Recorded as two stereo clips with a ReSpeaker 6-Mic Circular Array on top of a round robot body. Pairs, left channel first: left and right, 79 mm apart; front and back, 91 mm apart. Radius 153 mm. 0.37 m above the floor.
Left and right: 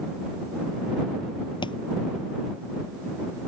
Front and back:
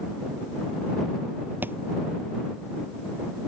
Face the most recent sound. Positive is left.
turn(degrees=110)